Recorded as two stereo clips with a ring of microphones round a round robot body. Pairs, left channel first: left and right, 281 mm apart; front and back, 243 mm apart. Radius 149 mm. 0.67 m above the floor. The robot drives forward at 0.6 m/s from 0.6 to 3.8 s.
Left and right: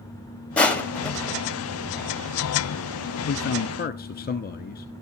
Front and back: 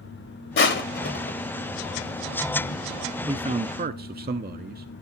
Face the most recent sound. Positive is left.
turn(degrees=140)